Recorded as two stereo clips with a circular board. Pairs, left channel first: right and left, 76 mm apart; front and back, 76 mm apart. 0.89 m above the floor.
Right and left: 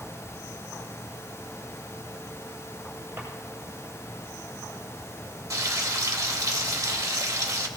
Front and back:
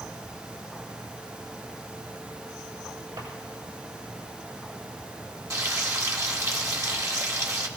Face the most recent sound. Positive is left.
turn(degrees=135)